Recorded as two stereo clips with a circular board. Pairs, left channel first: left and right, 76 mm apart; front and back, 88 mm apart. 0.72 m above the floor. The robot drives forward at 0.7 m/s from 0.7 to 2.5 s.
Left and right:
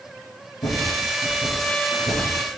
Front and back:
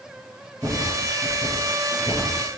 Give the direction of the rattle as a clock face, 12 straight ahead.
9 o'clock.